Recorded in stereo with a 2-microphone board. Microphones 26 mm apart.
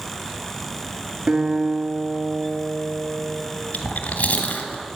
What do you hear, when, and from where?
1.3 s a guitar: 45° right (ahead or behind), 2.5 m
3.7 s chewing: 65° left (ahead or behind), 1.8 m